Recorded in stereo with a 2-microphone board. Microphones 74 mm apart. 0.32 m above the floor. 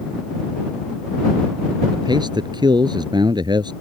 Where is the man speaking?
80° right.